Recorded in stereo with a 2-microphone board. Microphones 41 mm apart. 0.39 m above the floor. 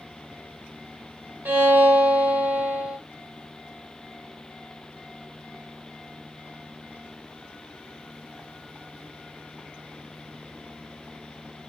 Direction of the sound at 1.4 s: 65° right (ahead or behind).